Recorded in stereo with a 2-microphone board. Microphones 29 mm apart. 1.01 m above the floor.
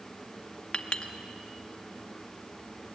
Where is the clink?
35° left (ahead or behind), 0.9 m.